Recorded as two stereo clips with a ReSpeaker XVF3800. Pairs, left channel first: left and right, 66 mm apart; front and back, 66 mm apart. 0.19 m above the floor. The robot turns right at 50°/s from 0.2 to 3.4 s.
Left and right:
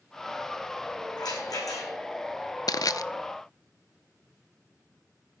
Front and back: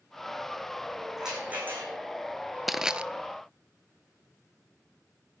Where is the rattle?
95° left, 8 m; by 1.9 s 130° left, 8 m.